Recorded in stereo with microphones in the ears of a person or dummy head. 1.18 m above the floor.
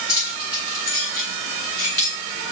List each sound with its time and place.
0.1 s keys jangling: 15° left (ahead or behind), 8 m